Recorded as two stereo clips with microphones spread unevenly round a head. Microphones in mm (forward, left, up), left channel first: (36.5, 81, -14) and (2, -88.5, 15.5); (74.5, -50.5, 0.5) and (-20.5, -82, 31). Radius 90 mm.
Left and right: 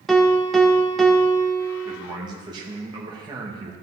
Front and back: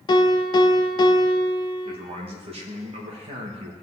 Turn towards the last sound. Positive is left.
turn(degrees=-165)